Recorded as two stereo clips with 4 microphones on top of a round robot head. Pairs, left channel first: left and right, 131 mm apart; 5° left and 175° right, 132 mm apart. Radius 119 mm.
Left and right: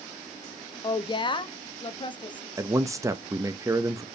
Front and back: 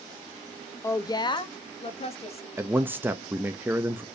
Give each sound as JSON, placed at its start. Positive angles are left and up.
{"t": 0.8, "sound": "a woman speaking", "azimuth_deg": 60, "distance_m": 0.8}
{"t": 2.6, "sound": "a man speaking", "azimuth_deg": -120, "distance_m": 0.7}